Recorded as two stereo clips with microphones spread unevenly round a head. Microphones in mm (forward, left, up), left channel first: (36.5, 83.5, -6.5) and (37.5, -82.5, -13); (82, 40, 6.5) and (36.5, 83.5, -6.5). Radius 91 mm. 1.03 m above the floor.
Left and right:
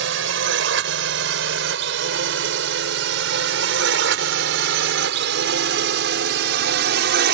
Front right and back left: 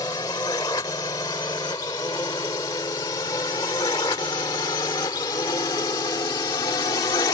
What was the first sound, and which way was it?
A drone, 105° right.